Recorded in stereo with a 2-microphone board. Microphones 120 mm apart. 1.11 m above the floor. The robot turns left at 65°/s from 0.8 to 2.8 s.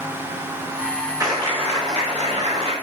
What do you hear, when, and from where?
1.2 s a clap: 30° right, 4 m; by 2.7 s 130° right, 4 m